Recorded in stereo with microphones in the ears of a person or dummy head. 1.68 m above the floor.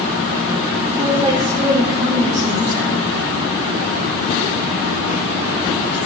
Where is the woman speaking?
30° right (ahead or behind), 4 m.